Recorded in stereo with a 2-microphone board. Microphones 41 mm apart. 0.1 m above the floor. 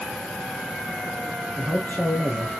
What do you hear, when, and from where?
1.6 s a man speaking: 50° left (ahead or behind), 2.5 m